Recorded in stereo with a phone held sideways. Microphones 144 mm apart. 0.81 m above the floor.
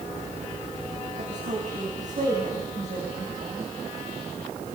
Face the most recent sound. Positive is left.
turn(degrees=-50)  # may be behind; listen again after turning